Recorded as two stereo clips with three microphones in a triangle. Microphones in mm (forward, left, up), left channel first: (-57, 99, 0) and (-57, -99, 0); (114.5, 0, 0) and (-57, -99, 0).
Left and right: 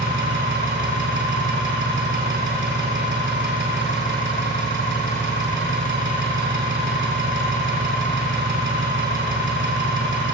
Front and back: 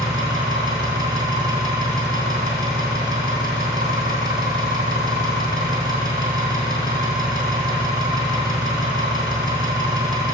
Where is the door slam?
No door slam in this recording.